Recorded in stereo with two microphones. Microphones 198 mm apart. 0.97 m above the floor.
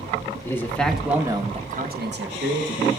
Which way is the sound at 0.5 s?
15° left (ahead or behind).